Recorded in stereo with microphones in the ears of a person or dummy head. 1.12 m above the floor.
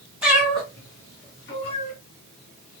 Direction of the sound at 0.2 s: 10° right (ahead or behind).